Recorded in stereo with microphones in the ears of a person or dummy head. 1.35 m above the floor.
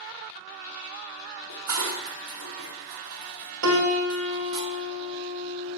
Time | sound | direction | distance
1.5 | dishes clattering | 75° right (ahead or behind) | 1.9 m
3.6 | a piano | 80° right | 2.5 m